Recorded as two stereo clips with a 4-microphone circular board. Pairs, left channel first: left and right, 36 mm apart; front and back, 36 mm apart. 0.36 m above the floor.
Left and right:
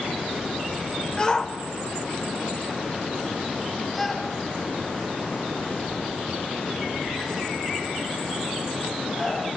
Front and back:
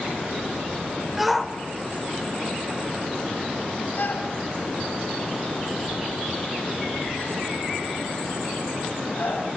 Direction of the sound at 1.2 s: 110° left.